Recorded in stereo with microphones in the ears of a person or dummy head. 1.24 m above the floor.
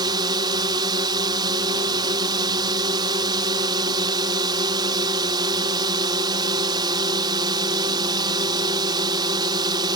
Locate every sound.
0.0 s a drone: 20° right (ahead or behind)